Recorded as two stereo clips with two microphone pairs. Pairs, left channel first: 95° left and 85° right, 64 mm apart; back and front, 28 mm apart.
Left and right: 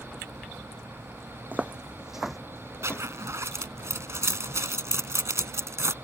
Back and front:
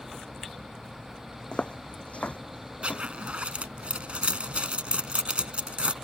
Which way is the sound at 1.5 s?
145° right.